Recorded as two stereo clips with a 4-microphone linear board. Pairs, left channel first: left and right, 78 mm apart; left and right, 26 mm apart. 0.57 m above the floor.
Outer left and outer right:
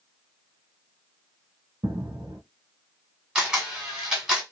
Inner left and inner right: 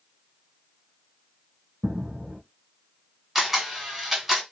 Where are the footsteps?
55° right (ahead or behind), 1.6 m.